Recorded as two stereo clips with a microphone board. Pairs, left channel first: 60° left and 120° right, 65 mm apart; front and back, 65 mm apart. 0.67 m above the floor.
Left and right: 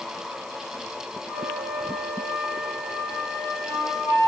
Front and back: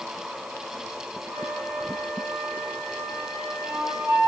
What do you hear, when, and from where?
1.3 s a flute: 120° left, 9 m